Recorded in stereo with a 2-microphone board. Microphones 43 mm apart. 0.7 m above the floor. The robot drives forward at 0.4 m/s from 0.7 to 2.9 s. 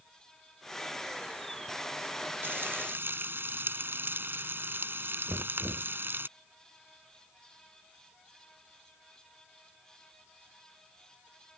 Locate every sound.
2.4 s frying: 60° right (ahead or behind)
5.3 s knocking: 80° right